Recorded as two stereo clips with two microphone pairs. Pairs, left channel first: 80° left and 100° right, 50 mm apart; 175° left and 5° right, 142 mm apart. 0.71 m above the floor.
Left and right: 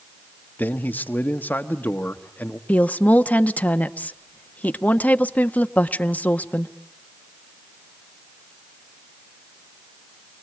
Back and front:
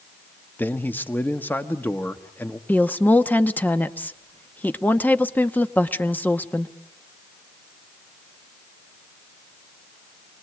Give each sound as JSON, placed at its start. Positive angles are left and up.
{"t": 0.6, "sound": "a man speaking", "azimuth_deg": 105, "distance_m": 1.2}
{"t": 2.7, "sound": "a woman speaking", "azimuth_deg": 105, "distance_m": 0.8}